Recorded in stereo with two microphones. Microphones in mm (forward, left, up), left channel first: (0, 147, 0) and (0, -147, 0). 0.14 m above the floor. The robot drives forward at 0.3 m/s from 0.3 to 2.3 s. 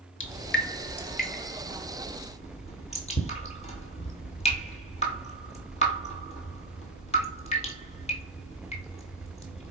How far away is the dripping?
About 0.6 m.